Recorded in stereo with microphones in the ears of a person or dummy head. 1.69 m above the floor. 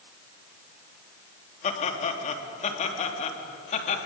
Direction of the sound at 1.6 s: 40° left (ahead or behind).